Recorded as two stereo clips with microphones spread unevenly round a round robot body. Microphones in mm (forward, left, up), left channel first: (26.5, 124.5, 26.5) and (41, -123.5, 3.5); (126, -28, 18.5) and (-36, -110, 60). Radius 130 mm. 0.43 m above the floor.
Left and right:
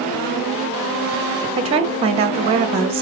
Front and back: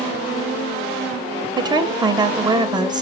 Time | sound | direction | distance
1.6 | a woman speaking | 85° right | 0.8 m